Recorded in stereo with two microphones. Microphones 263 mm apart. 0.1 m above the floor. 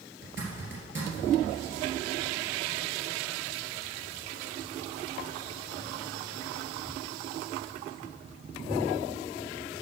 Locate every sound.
0.2 s a zipper: 45° right (ahead or behind), 2 m